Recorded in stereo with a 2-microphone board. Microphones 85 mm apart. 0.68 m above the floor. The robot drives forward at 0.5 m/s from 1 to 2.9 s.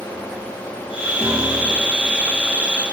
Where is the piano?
20° left (ahead or behind), 4 m.